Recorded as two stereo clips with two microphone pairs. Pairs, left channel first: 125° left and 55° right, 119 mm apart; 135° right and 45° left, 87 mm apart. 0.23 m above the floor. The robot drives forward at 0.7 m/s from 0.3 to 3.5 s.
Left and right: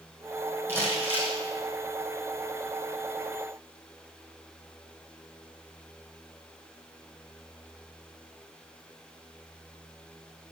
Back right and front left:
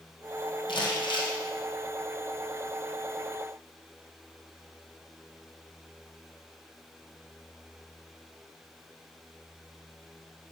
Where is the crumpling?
125° right, 2.5 m; by 1.4 s 135° right, 3 m.